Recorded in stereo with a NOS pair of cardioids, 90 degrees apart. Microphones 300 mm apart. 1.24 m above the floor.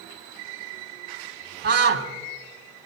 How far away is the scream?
About 4 m.